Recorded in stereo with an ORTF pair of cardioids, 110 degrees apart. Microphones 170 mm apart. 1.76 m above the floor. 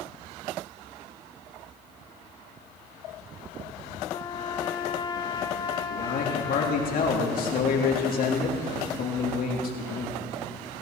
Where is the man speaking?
60° left, 3.5 m.